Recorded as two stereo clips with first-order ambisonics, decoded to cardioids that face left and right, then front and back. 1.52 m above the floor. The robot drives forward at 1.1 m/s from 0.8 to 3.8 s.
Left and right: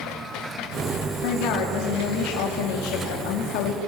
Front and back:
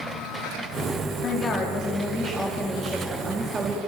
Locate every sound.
1.2 s a woman speaking: 60° left, 3.5 m; by 3.8 s 110° left, 3 m